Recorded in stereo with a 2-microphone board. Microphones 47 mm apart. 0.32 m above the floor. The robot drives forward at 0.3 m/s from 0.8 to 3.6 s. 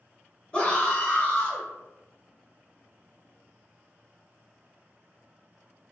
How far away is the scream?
About 0.9 m.